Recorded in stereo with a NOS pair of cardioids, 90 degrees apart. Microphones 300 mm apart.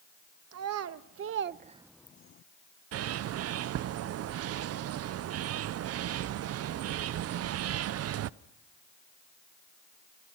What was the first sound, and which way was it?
A child speaking, 65° right.